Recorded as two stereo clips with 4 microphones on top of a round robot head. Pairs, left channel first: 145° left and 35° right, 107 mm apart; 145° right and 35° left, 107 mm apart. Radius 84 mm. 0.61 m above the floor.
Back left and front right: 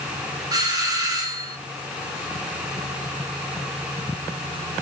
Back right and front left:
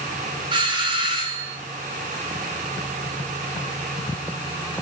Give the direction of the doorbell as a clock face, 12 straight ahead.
12 o'clock.